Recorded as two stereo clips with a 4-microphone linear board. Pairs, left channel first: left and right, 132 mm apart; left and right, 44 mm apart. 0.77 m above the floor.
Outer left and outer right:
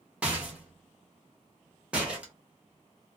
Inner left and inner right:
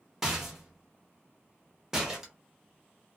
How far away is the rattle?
About 1.0 m.